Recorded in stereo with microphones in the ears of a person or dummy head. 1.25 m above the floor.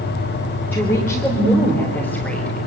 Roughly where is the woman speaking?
Centre.